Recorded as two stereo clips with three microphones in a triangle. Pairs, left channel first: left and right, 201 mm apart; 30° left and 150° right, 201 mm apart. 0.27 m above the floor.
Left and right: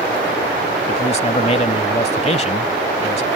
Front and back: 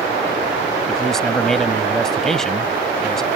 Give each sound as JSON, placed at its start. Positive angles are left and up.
{"t": 0.9, "sound": "a man speaking", "azimuth_deg": 115}